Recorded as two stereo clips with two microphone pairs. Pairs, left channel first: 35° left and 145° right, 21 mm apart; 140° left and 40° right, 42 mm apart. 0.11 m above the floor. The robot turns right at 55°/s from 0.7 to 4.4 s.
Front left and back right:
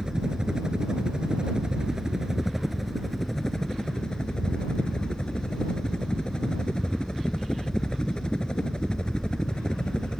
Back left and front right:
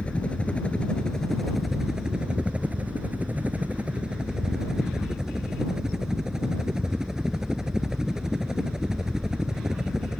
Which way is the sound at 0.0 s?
175° right.